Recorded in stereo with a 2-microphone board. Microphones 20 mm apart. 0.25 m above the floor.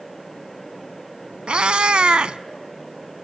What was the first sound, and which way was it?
A cat meowing, 70° right (ahead or behind).